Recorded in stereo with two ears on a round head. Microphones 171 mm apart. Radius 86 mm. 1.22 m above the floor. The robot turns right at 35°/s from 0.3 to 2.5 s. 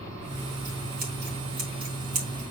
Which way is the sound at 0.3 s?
25° right (ahead or behind).